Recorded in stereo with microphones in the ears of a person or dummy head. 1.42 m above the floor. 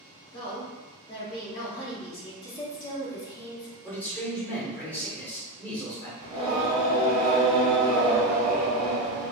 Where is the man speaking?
5° left (ahead or behind), 1.1 m.